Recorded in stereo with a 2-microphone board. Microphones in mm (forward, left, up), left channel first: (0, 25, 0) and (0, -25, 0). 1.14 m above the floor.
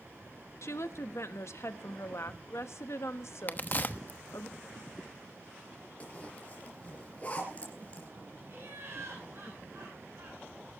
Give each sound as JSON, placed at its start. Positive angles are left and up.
{"t": 0.6, "sound": "a woman speaking", "side_deg": 70, "distance_m": 1.2}
{"t": 3.5, "sound": "a crack", "side_deg": 35, "distance_m": 1.0}
{"t": 6.0, "sound": "a zipper", "side_deg": 30, "distance_m": 4.0}
{"t": 8.5, "sound": "laughter", "side_deg": -50, "distance_m": 7.5}